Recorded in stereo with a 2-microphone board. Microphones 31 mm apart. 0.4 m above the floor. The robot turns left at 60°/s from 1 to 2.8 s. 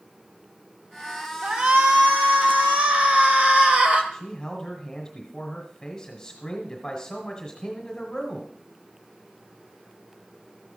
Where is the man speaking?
20° left (ahead or behind), 1.4 m.